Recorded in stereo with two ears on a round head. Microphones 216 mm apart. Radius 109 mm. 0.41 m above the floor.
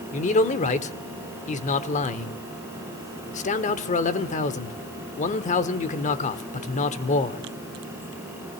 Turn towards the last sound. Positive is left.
turn(degrees=30)  # may be behind; listen again after turning